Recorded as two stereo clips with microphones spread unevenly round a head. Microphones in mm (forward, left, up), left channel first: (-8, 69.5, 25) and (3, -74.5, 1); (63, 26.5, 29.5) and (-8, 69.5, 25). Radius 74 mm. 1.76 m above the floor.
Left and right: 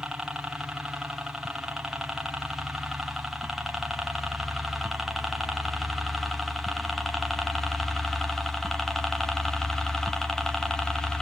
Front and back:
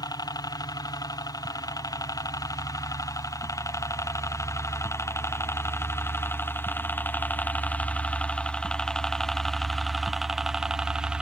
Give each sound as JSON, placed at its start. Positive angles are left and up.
{"t": 0.0, "sound": "a helicopter", "azimuth_deg": -5}